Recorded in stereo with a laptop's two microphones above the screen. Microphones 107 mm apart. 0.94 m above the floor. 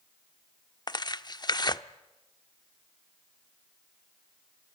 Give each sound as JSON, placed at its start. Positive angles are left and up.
{"t": 0.9, "sound": "tearing paper", "side_deg": 40, "distance_m": 0.7}